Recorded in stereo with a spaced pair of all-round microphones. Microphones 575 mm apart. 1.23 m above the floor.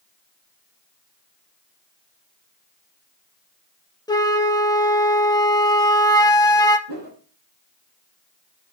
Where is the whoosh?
65° right (ahead or behind), 2.5 m.